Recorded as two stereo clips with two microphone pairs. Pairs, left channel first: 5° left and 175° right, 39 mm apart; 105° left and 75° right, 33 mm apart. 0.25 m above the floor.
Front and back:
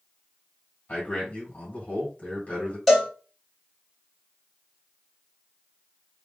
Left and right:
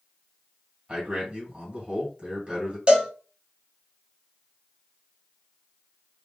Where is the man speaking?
25° right, 1.9 m.